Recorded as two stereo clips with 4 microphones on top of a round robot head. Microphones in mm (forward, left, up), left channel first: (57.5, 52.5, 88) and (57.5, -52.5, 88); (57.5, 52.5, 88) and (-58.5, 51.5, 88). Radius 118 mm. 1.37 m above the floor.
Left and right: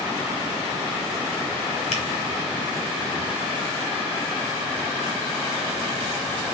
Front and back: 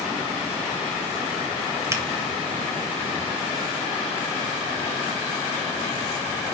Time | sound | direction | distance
1.9 | a finger snap | 115° left | 2.5 m